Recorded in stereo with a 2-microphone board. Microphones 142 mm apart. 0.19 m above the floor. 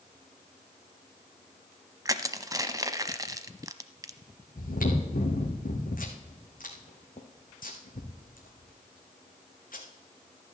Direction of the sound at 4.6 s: 80° left.